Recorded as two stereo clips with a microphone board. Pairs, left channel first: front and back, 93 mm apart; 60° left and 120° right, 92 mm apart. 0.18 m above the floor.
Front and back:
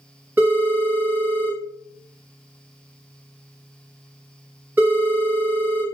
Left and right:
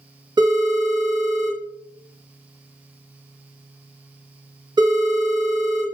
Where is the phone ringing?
115° right, 1.5 m.